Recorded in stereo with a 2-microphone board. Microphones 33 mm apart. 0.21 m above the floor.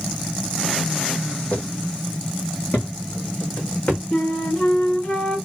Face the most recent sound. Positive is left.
turn(degrees=35)  # may be behind; listen again after turning